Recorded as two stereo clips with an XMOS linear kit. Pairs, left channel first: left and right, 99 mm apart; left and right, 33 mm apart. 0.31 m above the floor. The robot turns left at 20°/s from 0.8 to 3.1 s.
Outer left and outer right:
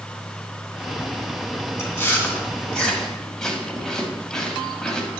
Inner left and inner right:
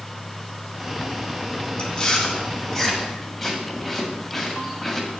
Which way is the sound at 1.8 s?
25° left (ahead or behind).